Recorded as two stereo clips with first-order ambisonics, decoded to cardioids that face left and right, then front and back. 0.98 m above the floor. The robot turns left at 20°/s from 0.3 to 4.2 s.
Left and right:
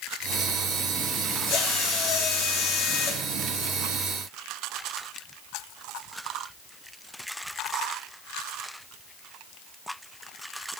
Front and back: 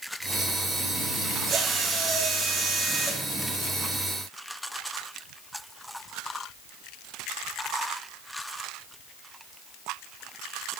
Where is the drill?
115° left, 2 m; by 3.2 s 80° left, 2 m.